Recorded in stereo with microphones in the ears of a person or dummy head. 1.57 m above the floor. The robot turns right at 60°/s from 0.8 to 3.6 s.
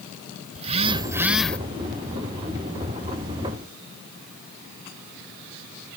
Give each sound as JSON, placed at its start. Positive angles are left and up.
{"t": 0.6, "sound": "a phone buzzing", "azimuth_deg": -40}